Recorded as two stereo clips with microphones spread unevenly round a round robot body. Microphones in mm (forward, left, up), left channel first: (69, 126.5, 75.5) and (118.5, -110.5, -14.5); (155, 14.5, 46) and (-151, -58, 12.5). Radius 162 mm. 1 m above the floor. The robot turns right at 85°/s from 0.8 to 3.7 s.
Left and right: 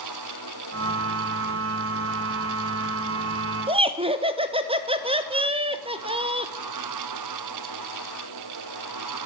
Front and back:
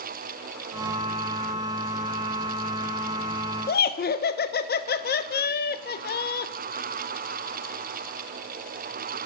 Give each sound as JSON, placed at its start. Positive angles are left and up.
{"t": 3.7, "sound": "laughter", "azimuth_deg": -45, "distance_m": 0.7}